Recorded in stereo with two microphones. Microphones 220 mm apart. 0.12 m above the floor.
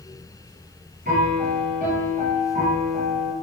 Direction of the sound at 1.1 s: 40° right (ahead or behind).